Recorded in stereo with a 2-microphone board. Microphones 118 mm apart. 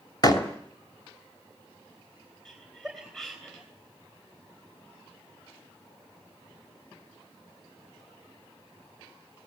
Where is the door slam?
35° left (ahead or behind), 2.5 m.